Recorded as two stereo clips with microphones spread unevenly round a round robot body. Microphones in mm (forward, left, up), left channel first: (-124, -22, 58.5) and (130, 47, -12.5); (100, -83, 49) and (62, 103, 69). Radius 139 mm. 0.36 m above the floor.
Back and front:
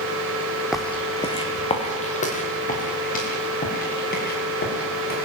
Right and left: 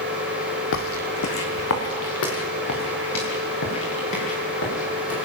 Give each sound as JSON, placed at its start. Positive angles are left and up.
{"t": 0.7, "sound": "footsteps", "azimuth_deg": -75, "distance_m": 1.3}